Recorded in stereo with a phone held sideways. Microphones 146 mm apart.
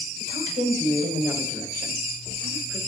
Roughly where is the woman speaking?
Right.